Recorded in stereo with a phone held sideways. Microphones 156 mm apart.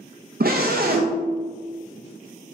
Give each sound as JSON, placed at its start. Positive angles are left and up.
{"t": 0.4, "sound": "a scream", "side_deg": -75, "distance_m": 0.5}